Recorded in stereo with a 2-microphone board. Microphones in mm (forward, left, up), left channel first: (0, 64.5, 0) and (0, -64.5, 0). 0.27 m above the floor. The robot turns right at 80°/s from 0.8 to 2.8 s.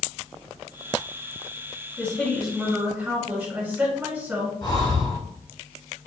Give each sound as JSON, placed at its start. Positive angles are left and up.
{"t": 2.0, "sound": "a woman speaking", "side_deg": 10, "distance_m": 1.5}
{"t": 4.6, "sound": "breathing", "side_deg": 35, "distance_m": 1.0}